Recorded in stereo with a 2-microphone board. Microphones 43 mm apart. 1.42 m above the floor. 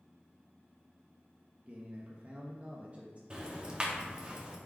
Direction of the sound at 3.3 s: 20° right (ahead or behind).